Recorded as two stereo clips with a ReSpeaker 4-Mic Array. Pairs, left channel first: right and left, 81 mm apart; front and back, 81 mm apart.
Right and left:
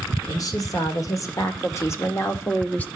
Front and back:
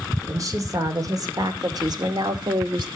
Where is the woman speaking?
130° right, 2.5 m; by 2.9 s 160° right, 1.5 m.